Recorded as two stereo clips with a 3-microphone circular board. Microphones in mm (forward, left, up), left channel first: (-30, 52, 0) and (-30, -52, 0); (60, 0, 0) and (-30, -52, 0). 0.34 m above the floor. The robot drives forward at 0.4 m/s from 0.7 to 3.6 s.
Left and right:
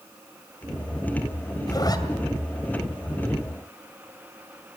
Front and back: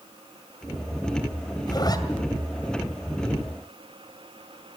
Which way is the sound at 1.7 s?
55° left.